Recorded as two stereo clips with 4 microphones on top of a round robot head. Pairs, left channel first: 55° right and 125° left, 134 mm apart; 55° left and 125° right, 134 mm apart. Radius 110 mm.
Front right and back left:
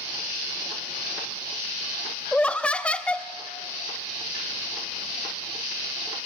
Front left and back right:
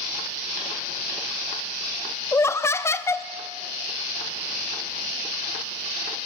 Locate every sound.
2.3 s laughter: 15° left, 0.7 m